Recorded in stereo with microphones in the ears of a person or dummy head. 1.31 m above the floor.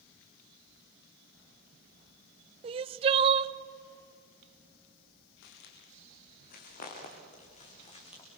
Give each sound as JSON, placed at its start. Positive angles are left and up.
{"t": 2.6, "sound": "crying", "side_deg": -30, "distance_m": 0.6}
{"t": 5.4, "sound": "footsteps", "side_deg": 65, "distance_m": 4.5}